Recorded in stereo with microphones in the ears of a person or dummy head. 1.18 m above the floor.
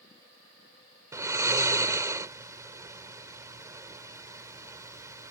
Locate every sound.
1.1 s snoring: 15° right (ahead or behind)